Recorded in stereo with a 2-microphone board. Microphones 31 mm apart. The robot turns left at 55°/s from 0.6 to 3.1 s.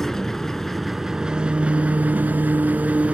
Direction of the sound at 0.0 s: 15° left.